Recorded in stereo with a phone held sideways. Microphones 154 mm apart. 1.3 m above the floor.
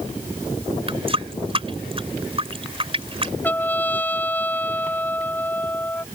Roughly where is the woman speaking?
I don't hear a woman speaking.